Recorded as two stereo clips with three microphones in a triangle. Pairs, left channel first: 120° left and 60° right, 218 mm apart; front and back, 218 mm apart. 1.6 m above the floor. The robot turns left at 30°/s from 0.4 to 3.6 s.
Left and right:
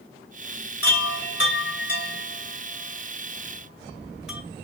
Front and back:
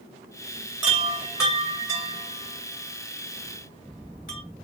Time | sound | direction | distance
0.8 | a chime | 110° left | 1.9 m